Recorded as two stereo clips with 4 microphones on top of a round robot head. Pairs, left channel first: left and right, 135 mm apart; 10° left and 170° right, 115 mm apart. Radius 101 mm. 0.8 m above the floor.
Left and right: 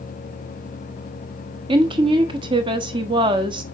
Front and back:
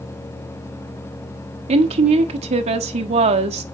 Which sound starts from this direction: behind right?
A woman speaking, at 1.7 s.